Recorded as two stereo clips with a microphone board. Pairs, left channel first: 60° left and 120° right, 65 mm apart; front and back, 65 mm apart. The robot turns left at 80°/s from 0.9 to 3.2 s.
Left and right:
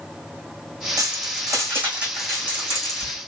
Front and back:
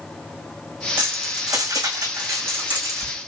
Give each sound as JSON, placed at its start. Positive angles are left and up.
{"t": 1.0, "sound": "keys jangling", "azimuth_deg": -110, "distance_m": 3.5}